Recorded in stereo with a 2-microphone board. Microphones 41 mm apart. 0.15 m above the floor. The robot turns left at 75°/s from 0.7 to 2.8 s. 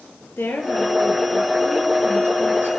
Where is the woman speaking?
75° left, 3.5 m; by 2.7 s 75° right, 3.5 m.